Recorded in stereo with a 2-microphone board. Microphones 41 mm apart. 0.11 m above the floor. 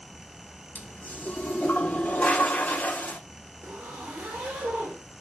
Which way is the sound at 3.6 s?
45° right (ahead or behind).